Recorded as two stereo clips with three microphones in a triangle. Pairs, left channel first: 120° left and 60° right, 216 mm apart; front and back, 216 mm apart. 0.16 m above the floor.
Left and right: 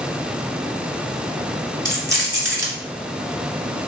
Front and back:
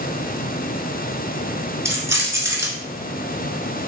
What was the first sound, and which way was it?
Keys jangling, 105° left.